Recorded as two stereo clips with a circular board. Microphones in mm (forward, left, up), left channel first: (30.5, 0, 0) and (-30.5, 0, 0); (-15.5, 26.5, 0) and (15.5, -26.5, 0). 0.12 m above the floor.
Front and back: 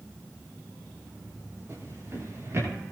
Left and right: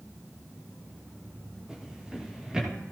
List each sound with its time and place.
1.7 s a drawer: 135° right, 7.5 m